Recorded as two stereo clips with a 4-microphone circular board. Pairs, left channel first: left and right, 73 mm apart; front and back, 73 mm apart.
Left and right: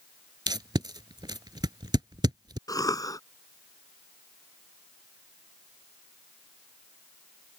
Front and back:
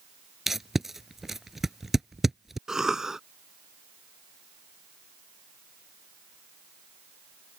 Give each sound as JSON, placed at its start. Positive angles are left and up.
{"t": 0.5, "sound": "tape being pulled", "azimuth_deg": -95}
{"t": 2.7, "sound": "a cough", "azimuth_deg": 100}